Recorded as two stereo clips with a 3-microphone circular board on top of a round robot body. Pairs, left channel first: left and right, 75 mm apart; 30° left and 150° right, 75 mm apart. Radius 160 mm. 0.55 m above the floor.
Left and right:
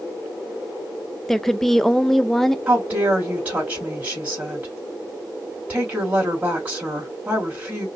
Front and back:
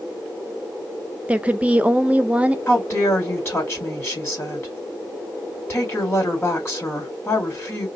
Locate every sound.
1.3 s a woman speaking: 170° left, 0.7 m
2.7 s a woman speaking: 25° right, 2.0 m